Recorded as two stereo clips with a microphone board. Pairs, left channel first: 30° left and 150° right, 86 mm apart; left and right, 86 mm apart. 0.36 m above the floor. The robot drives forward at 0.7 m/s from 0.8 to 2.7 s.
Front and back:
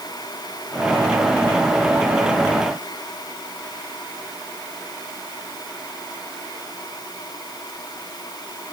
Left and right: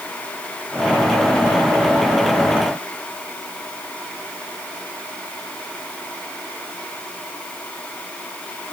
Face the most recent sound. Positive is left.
No sound to turn to.